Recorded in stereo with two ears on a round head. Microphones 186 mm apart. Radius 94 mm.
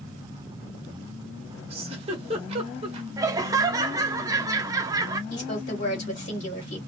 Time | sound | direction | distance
1.7 | a giggle | 30° right (ahead or behind) | 1.0 m
3.2 | laughter | 20° right (ahead or behind) | 0.6 m
5.3 | a woman speaking | 40° left (ahead or behind) | 1.8 m